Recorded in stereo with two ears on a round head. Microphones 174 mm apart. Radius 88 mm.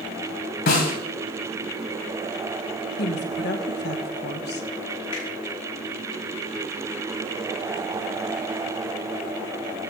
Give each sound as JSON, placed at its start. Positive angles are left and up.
{"t": 0.7, "sound": "a snare drum", "side_deg": 55, "distance_m": 3.0}
{"t": 3.0, "sound": "a woman speaking", "side_deg": 60, "distance_m": 1.2}
{"t": 5.1, "sound": "a finger snap", "side_deg": 75, "distance_m": 6.0}